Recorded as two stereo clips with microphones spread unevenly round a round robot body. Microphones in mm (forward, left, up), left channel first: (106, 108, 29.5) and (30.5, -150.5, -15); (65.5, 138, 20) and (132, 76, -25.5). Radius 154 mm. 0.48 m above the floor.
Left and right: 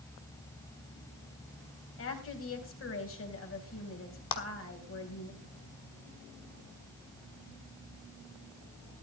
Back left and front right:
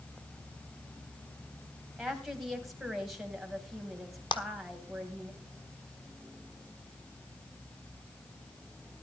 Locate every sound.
2.0 s a woman speaking: 35° left, 3.5 m
4.3 s a clap: 90° left, 1.4 m